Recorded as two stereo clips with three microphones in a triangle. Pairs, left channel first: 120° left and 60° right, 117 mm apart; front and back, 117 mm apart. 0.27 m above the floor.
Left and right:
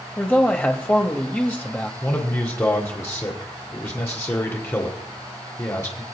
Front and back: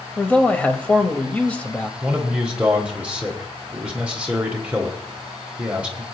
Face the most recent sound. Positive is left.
turn(degrees=120)